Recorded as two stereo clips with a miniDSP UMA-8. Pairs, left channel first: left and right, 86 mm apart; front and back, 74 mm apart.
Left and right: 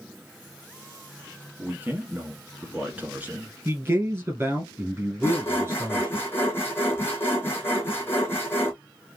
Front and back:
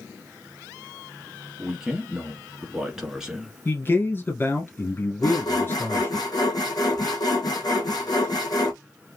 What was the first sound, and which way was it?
A man speaking, 115° right.